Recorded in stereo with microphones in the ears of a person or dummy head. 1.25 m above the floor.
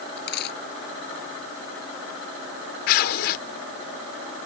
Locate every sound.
0.2 s a dropped coin: 65° left (ahead or behind)
2.9 s tearing paper: 50° left (ahead or behind)